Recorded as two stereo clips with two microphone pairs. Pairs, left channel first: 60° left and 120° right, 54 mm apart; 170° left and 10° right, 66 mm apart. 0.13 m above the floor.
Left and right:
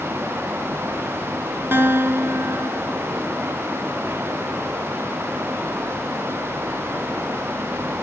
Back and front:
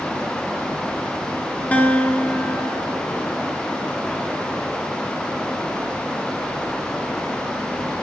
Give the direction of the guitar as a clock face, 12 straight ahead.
4 o'clock.